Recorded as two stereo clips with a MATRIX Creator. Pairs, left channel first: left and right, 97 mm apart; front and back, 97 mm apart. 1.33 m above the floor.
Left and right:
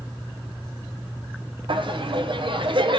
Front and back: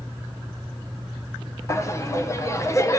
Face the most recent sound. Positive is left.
turn(degrees=-60)